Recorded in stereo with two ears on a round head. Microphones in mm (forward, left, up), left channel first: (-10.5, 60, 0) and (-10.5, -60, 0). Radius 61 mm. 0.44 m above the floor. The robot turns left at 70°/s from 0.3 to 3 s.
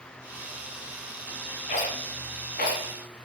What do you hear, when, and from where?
1.7 s a rattle: 55° left (ahead or behind), 1.7 m; by 2.8 s 45° left (ahead or behind), 1.7 m